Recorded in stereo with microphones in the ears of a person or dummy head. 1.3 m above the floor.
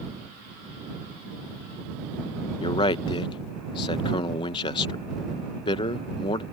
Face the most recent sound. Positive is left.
turn(degrees=25)  # may be behind; listen again after turning